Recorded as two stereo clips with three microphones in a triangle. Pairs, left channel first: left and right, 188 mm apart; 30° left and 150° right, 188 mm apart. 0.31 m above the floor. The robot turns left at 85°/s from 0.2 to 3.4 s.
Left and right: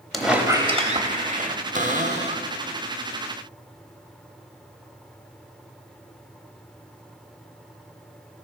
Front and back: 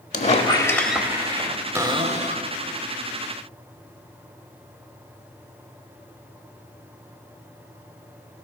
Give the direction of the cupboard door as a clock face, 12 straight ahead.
3 o'clock.